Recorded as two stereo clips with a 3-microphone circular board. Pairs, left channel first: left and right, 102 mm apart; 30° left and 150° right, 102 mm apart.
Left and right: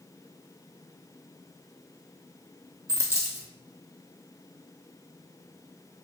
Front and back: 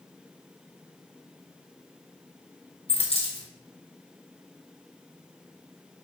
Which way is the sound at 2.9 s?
30° left.